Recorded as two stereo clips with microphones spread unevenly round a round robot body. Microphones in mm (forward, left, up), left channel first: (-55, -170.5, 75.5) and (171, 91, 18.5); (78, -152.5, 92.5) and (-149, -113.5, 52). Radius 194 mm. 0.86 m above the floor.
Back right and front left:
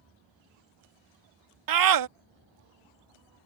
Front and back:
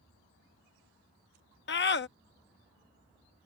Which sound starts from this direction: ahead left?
A scream, at 1.7 s.